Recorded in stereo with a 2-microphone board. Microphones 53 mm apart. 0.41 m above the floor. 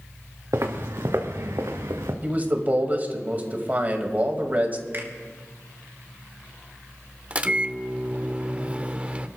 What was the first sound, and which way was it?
Footsteps, 60° right (ahead or behind).